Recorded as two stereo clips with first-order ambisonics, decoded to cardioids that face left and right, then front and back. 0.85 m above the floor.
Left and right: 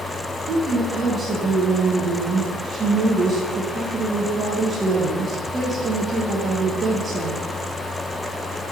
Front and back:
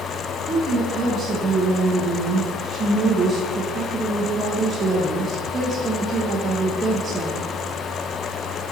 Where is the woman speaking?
125° right, 0.7 m.